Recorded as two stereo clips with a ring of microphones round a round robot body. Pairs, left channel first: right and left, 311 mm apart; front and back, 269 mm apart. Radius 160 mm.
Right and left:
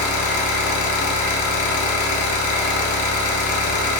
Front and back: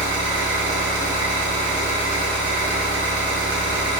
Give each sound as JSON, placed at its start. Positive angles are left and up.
{"t": 0.0, "sound": "an engine running", "azimuth_deg": -105, "distance_m": 0.8}